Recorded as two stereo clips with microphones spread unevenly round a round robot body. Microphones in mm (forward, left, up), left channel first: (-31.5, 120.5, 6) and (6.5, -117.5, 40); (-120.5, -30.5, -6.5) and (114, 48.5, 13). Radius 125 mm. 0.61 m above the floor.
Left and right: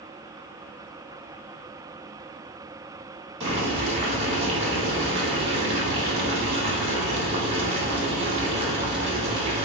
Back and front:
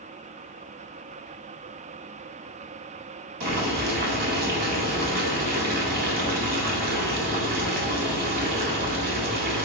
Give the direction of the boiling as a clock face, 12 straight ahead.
1 o'clock.